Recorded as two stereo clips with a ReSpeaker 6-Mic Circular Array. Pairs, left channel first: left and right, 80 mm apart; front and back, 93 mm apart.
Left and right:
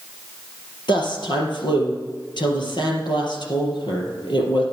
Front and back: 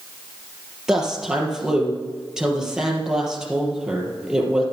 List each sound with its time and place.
0.9 s a woman speaking: 95° left, 4 m